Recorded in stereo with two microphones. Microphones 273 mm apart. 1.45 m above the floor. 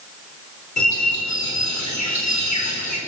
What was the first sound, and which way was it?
A bird, 85° left.